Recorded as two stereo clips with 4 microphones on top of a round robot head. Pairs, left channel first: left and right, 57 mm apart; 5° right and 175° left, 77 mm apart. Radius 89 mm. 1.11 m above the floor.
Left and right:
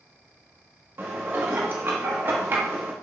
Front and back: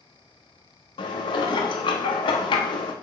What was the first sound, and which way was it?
Dishes clattering, 30° right.